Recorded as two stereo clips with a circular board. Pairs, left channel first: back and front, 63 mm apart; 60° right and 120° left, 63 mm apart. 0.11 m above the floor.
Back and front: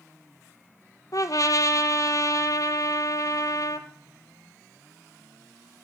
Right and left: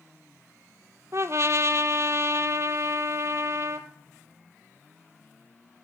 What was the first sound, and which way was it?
A trumpet, 155° left.